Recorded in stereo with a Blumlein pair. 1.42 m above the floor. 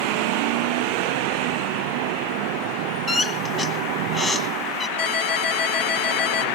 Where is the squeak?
15° left, 1.4 m.